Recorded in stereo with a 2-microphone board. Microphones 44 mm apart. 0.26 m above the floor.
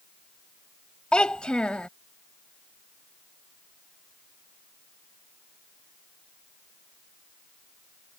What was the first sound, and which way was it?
A child speaking, 20° left (ahead or behind).